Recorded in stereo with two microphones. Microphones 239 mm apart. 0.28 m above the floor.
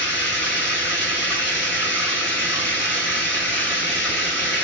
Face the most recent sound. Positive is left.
turn(degrees=50)  # may be behind; listen again after turning